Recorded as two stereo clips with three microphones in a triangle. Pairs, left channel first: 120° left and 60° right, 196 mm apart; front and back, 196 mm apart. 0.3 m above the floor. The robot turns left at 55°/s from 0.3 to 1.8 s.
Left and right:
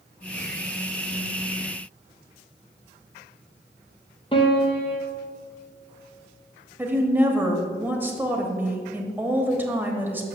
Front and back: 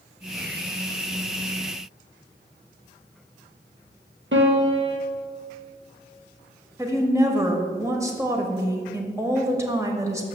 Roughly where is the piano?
Behind.